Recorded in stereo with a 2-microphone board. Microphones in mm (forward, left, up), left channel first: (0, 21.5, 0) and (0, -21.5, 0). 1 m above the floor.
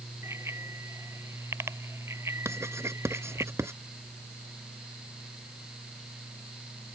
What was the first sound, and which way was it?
A bicycle bell, 80° right.